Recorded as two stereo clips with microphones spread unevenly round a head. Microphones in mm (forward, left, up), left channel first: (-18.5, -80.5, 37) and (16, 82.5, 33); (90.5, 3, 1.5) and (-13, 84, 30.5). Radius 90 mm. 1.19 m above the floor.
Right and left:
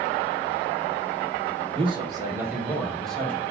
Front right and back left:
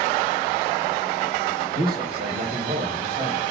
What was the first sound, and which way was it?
A man speaking, 135° left.